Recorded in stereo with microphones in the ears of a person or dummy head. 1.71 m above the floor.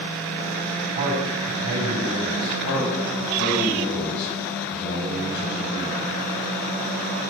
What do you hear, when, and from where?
0.9 s a man speaking: 65° right (ahead or behind), 4.5 m
2.6 s a man speaking: 55° left (ahead or behind), 8 m